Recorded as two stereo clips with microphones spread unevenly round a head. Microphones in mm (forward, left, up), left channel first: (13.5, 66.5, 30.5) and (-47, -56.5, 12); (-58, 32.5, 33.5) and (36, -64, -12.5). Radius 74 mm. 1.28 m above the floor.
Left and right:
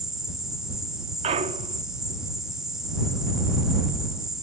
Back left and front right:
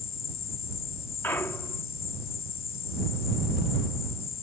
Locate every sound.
0.0 s an insect: 155° left
1.2 s a clunk: 165° right